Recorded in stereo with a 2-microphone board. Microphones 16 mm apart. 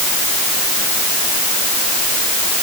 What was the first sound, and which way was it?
Only background noise.